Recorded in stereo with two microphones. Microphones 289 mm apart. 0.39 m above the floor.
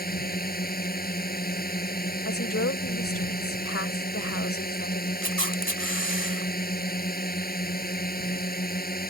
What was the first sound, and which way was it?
A drone, 30° left (ahead or behind).